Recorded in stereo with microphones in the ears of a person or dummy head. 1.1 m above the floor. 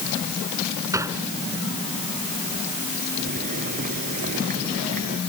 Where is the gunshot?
15° right (ahead or behind).